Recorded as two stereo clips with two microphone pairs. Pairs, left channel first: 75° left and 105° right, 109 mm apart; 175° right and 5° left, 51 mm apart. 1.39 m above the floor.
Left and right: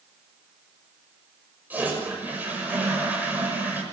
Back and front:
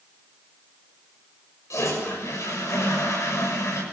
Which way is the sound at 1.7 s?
175° right.